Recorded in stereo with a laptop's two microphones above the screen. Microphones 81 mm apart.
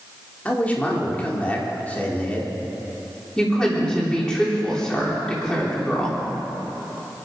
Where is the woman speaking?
10° left (ahead or behind), 3 m.